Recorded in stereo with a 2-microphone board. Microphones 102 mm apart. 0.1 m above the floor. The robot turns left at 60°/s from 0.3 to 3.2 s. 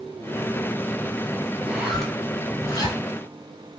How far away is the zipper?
About 1.1 m.